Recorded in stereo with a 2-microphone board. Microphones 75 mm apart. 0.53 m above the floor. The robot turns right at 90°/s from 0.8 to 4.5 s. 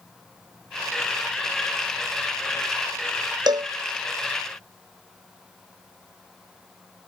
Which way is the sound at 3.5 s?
75° right (ahead or behind).